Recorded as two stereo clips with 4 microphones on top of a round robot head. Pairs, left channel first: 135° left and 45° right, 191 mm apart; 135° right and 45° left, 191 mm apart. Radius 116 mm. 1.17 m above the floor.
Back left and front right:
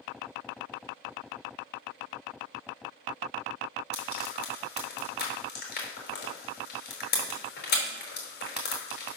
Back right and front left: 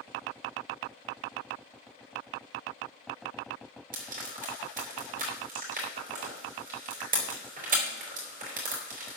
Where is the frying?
95° left, 4.5 m.